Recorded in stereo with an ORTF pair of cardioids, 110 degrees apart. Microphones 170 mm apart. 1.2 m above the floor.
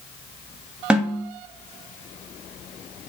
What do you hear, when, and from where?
0.9 s a snare drum: 5° right, 1.2 m